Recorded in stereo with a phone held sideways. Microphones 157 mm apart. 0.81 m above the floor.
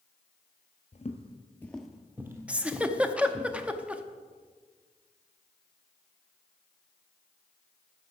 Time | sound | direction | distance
0.9 | footsteps | 45° left (ahead or behind) | 1.1 m
2.5 | a giggle | 5° right (ahead or behind) | 0.6 m